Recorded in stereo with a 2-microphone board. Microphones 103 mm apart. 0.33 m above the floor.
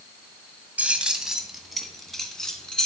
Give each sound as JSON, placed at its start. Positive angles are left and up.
{"t": 0.8, "sound": "keys jangling", "side_deg": -15, "distance_m": 1.2}